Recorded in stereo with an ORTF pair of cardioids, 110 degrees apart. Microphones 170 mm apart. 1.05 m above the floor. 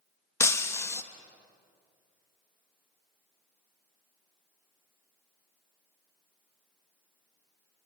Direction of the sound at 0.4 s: 15° left.